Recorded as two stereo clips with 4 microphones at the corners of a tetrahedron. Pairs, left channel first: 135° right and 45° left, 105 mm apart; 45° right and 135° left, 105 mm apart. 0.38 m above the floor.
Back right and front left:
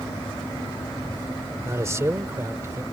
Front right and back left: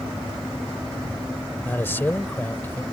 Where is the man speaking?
10° left.